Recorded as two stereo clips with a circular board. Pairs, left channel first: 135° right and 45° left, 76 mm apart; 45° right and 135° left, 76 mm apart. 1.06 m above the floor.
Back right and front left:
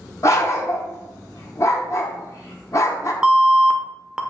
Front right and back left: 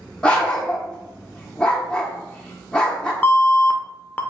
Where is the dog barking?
115° right, 0.8 m.